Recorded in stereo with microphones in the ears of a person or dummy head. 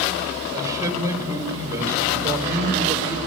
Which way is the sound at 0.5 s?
20° right (ahead or behind).